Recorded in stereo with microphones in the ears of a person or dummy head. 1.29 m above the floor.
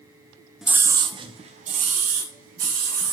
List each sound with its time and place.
0.6 s a scream: 5° right (ahead or behind), 0.6 m; by 3.1 s 50° right (ahead or behind), 2 m